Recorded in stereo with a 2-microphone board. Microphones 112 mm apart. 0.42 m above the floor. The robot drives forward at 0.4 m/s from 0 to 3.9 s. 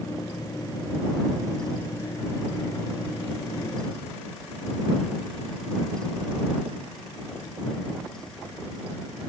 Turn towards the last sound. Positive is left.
No sound to turn to.